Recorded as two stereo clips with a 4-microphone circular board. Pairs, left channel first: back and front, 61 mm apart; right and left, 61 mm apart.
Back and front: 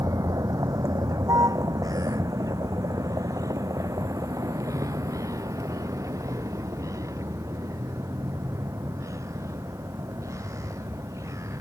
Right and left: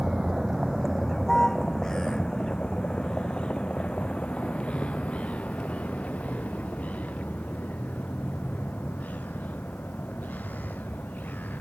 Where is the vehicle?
5° left; by 11.6 s 30° right.